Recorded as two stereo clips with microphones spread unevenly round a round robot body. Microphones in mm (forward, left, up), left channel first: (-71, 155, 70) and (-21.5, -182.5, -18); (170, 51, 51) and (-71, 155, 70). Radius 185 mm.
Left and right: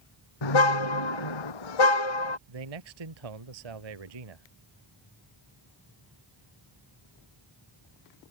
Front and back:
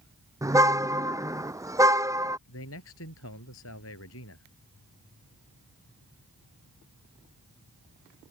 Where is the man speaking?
75° right.